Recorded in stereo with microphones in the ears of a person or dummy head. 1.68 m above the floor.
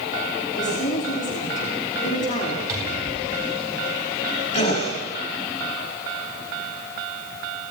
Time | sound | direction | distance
0.6 | a woman speaking | 40° left (ahead or behind) | 4.5 m
2.7 | a cupboard door | 15° right (ahead or behind) | 9 m
4.5 | a gasp | 35° left (ahead or behind) | 5.5 m